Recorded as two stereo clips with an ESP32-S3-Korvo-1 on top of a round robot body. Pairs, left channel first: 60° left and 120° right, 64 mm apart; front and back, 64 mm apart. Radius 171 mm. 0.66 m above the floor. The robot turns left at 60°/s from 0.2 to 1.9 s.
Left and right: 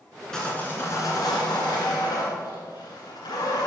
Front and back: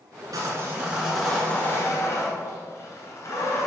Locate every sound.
0.3 s sawing: 145° left, 1.8 m; by 3.7 s 50° left, 1.8 m